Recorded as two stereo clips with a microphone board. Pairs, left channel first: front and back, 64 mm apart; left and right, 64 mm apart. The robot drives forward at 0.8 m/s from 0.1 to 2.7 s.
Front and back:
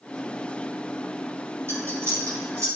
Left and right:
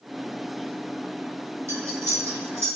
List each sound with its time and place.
1.7 s cutlery clinking: 130° right, 4 m; by 2.7 s 140° right, 4.5 m